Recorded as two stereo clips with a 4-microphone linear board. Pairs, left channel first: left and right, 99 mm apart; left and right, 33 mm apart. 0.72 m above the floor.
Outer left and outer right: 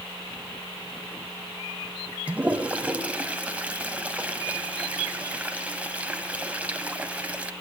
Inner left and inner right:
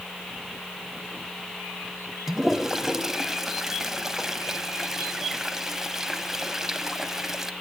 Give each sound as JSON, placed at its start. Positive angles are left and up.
{"t": 2.3, "sound": "a toilet flushing", "side_deg": -15, "distance_m": 1.6}